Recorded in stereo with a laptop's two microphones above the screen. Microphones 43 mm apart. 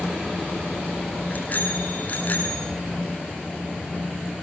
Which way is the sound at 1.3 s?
40° left (ahead or behind).